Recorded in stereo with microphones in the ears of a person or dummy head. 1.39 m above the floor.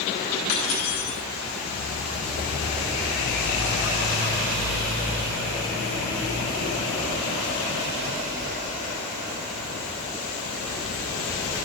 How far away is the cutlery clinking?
About 5.5 m.